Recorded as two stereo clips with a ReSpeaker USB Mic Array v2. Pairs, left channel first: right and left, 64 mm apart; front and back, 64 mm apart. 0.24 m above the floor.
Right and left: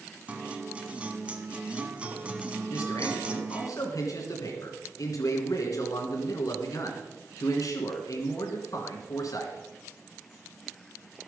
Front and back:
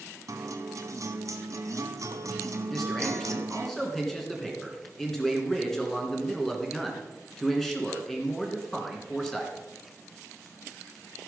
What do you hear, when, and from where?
0.3 s a guitar: 160° left, 0.9 m
2.7 s a man speaking: 85° right, 2.5 m